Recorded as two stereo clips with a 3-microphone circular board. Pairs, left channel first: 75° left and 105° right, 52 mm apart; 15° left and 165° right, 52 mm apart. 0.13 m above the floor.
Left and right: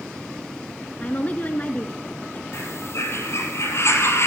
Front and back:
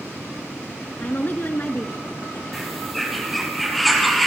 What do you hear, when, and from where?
1.0 s a woman speaking: 40° left, 1.3 m
2.5 s a bird: 105° left, 2.5 m